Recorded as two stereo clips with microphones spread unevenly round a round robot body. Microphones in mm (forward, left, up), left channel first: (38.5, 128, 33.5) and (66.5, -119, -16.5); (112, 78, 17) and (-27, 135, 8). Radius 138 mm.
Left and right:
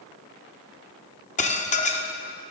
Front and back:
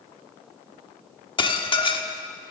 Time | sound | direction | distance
1.4 | dishes clattering | 35° left | 1.4 m